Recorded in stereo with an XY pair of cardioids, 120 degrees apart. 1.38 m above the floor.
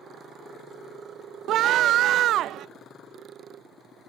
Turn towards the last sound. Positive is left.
turn(degrees=-65)